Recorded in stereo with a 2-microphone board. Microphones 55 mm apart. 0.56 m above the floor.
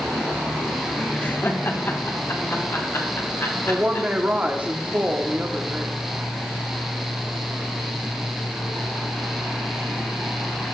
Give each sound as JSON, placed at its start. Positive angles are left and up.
{"t": 1.2, "sound": "laughter", "side_deg": 25, "distance_m": 0.7}
{"t": 3.7, "sound": "a woman speaking", "side_deg": -30, "distance_m": 0.8}